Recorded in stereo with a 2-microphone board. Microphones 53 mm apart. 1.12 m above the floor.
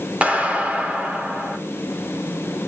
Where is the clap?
25° right (ahead or behind), 3.5 m.